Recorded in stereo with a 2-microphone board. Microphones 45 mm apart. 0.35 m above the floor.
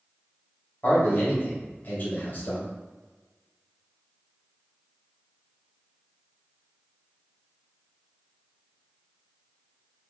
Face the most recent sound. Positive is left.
turn(degrees=50)  # may be behind; listen again after turning